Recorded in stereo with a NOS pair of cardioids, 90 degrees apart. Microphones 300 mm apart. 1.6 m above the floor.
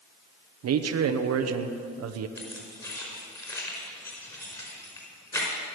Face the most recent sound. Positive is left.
turn(degrees=10)